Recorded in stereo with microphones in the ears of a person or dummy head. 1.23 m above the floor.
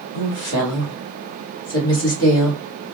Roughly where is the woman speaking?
Left.